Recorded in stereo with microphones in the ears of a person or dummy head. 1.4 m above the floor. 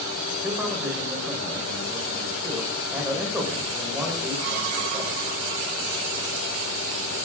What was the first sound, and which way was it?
A man speaking, 15° right (ahead or behind).